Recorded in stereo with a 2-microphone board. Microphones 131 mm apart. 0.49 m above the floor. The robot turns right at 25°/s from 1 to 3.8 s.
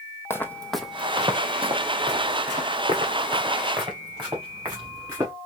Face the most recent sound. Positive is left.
turn(degrees=-30)  # may be behind; listen again after turning